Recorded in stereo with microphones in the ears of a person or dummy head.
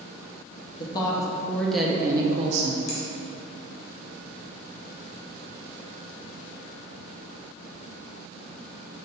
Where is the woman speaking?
25° left (ahead or behind), 0.9 m; by 2.8 s 50° right (ahead or behind), 0.6 m.